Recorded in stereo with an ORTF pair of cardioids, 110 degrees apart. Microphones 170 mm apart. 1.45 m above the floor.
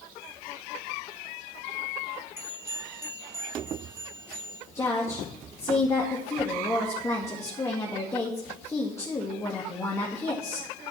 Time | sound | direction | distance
2.4 | a bell | 15° right | 3.5 m
4.8 | a woman speaking | 15° left | 2 m